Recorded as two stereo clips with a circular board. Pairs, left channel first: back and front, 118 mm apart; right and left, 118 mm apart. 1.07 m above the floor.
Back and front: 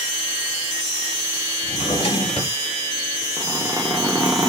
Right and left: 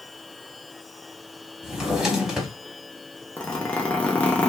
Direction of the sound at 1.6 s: 175° left.